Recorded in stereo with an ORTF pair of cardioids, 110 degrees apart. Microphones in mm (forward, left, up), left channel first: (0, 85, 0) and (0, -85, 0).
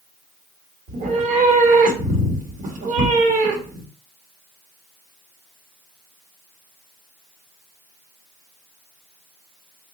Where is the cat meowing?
60° right, 1.0 m.